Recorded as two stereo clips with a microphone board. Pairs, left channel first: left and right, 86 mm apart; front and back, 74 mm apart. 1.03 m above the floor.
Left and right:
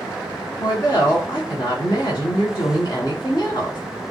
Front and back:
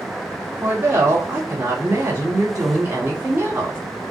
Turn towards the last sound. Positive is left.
turn(degrees=130)